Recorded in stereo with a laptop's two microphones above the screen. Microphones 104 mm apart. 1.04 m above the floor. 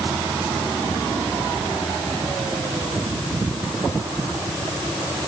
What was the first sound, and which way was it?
Only background noise.